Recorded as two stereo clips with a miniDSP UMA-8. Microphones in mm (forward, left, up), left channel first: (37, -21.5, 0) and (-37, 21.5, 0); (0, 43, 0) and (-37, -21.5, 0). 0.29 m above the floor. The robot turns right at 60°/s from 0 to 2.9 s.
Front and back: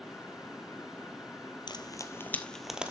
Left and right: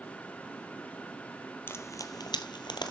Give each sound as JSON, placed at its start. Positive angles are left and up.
{"t": 1.7, "sound": "frying", "azimuth_deg": 0, "distance_m": 1.1}